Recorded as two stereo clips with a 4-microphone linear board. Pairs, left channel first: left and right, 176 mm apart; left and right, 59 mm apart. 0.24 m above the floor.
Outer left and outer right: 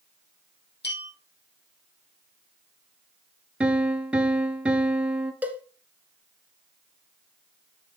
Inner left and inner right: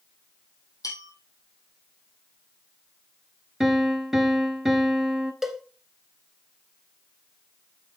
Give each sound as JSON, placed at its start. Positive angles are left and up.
{"t": 0.8, "sound": "a bell", "side_deg": 80, "distance_m": 3.0}
{"t": 3.6, "sound": "a piano", "side_deg": -5, "distance_m": 0.8}
{"t": 5.4, "sound": "a cowbell", "side_deg": -10, "distance_m": 0.9}